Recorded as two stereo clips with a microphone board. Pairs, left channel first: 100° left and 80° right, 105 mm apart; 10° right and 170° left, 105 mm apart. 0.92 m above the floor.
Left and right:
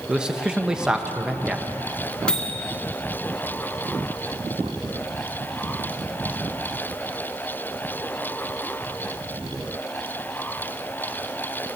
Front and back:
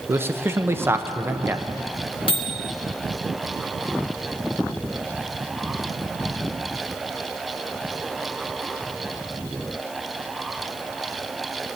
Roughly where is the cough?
I don't hear a cough.